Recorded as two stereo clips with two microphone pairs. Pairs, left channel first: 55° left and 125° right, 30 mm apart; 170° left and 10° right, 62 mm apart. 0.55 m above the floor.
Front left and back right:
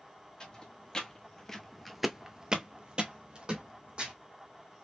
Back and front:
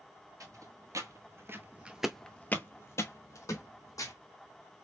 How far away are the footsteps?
About 1.2 m.